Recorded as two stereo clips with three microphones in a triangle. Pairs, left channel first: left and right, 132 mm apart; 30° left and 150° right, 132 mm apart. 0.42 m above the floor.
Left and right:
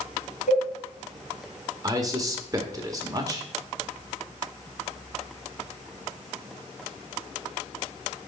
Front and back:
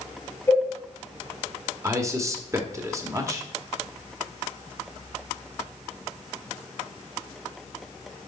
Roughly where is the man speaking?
Right.